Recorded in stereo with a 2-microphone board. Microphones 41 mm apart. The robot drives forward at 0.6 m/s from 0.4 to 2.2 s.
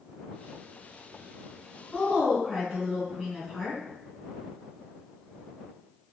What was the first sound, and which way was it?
A woman speaking, 5° left (ahead or behind).